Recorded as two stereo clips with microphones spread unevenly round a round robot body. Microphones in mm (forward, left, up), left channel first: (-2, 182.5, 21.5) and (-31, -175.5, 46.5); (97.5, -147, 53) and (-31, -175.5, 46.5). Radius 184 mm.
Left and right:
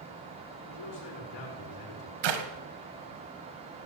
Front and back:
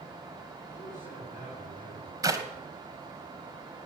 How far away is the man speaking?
About 5.5 m.